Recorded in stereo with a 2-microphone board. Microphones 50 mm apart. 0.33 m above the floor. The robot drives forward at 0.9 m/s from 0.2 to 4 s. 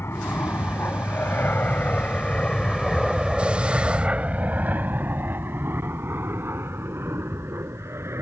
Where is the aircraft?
60° left (ahead or behind); by 8.2 s 65° right (ahead or behind).